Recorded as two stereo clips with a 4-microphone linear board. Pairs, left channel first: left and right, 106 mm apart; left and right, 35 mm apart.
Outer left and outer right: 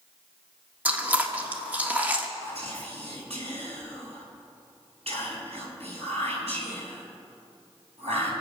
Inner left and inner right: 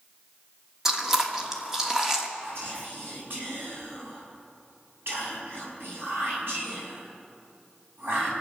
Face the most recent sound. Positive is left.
turn(degrees=-75)  # may be behind; listen again after turning